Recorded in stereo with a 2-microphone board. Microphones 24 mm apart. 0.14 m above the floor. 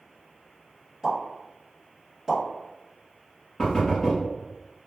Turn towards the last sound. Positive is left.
turn(degrees=20)  # may be behind; listen again after turning